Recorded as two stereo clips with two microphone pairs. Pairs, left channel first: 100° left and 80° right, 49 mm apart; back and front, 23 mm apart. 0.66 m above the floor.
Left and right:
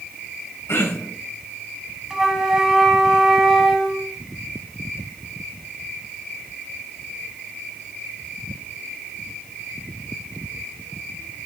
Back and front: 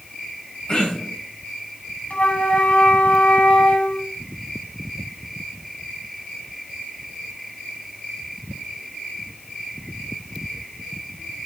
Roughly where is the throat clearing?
Behind left.